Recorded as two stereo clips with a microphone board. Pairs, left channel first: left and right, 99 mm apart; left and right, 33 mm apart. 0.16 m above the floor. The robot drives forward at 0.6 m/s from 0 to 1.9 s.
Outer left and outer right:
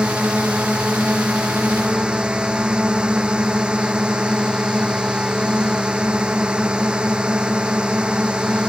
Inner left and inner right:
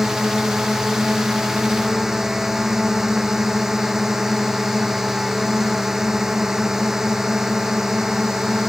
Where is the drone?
10° right (ahead or behind).